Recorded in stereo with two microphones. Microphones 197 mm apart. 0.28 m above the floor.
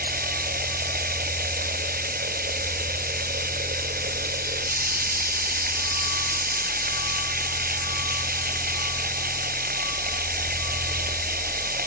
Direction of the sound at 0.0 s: 50° right (ahead or behind).